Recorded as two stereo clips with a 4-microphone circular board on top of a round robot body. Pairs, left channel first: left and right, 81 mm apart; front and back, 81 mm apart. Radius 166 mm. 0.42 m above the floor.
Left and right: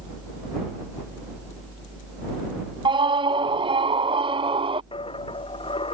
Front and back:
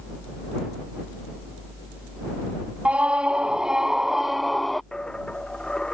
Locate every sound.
2.9 s a scream: 105° right; by 4.8 s 90° right
4.9 s a dropped coin: 80° left